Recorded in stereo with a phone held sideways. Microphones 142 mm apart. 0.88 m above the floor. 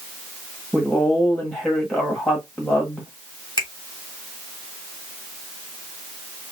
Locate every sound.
0.7 s a woman speaking: 5° left (ahead or behind), 1.3 m
3.6 s a finger snap: 35° left (ahead or behind), 2.5 m